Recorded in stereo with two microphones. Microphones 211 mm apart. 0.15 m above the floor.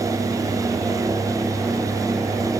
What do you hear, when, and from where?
Only background noise.